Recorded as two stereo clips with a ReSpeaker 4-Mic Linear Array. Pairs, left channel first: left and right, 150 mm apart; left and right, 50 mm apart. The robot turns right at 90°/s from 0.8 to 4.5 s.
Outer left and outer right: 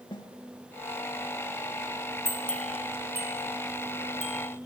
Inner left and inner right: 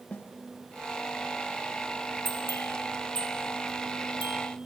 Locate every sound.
0.1 s a snare drum: 35° left (ahead or behind), 1.4 m
2.2 s a bell: 50° left (ahead or behind), 1.5 m; by 4.4 s 60° right (ahead or behind), 1.5 m